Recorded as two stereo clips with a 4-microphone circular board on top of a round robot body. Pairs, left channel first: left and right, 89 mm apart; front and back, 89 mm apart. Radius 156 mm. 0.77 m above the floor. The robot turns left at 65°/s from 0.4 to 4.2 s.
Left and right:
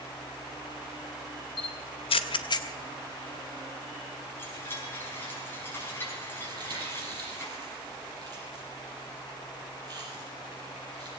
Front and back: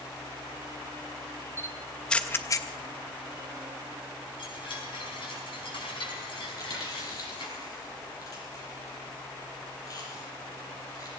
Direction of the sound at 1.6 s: 115° left.